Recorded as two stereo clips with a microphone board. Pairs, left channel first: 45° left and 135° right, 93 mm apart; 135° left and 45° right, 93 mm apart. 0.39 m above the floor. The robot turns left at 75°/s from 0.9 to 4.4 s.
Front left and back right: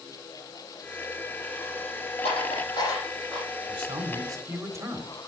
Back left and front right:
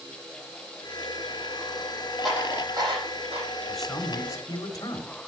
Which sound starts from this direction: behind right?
A man speaking, at 3.7 s.